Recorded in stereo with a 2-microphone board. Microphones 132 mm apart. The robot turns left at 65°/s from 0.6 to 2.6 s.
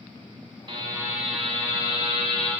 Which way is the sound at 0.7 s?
135° right.